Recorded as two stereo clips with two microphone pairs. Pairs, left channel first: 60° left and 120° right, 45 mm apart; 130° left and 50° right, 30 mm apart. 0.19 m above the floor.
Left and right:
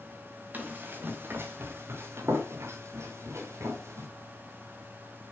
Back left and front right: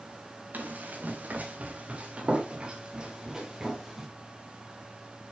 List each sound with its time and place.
0.5 s running footsteps: 70° right, 3 m; by 4.1 s 125° right, 3 m